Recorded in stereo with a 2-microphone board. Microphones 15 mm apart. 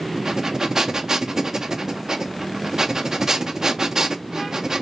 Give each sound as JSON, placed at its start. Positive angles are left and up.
{"t": 0.1, "sound": "breathing", "side_deg": -40, "distance_m": 0.5}